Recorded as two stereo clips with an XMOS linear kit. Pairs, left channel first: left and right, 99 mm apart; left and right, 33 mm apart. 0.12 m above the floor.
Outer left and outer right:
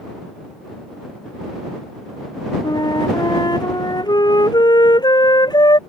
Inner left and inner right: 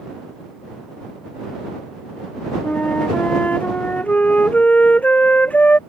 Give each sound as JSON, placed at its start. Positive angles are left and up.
{"t": 2.6, "sound": "a flute", "side_deg": 45}